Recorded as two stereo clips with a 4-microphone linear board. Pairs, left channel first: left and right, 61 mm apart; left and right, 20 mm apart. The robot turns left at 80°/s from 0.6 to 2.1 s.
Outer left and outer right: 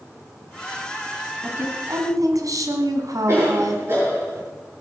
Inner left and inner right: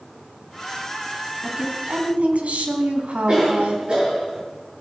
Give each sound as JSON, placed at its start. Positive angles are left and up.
{"t": 1.4, "sound": "a woman speaking", "azimuth_deg": -30, "distance_m": 3.0}
{"t": 3.3, "sound": "a cough", "side_deg": -55, "distance_m": 7.0}